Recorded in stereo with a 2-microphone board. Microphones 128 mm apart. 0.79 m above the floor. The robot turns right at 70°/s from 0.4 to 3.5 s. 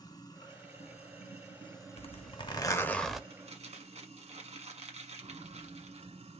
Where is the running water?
45° left, 1.0 m; by 6.4 s 100° right, 1.0 m.